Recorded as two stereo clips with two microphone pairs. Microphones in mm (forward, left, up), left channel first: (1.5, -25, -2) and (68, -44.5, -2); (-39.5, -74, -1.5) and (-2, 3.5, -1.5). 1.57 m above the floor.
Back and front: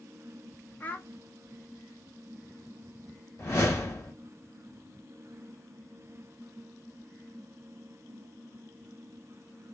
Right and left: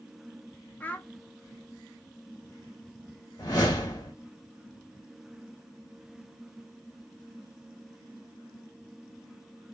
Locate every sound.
0.8 s a child speaking: 150° right, 0.5 m
3.4 s a whoosh: 155° right, 1.2 m